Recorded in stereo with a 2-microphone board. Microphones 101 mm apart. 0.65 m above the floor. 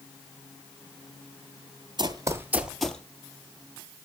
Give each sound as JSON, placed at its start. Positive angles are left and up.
{"t": 2.0, "sound": "running footsteps", "side_deg": -45, "distance_m": 0.9}